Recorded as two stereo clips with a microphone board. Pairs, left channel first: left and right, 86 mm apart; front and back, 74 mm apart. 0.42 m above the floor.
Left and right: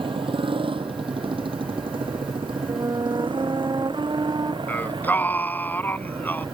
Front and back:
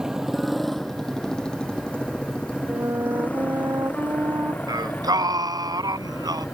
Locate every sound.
0.0 s a motorcycle: 100° right; by 6.6 s 65° right
2.7 s a flute: 135° right
4.7 s singing: 160° left